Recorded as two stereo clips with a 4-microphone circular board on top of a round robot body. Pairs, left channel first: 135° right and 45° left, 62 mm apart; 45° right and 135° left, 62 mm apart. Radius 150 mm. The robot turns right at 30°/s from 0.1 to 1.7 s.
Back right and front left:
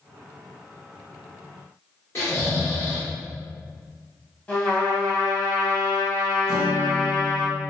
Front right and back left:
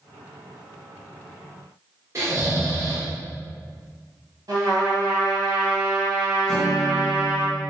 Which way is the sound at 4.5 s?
160° left.